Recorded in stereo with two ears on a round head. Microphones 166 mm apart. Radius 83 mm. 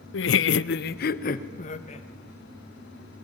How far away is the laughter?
About 0.7 m.